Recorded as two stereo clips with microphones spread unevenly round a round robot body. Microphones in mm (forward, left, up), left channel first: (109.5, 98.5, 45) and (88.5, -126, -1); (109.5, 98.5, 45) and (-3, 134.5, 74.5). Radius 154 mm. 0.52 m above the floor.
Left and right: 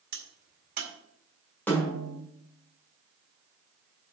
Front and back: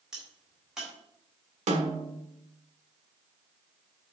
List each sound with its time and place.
0.1 s a crack: 105° right, 1.9 m
1.7 s a snare drum: 175° left, 1.4 m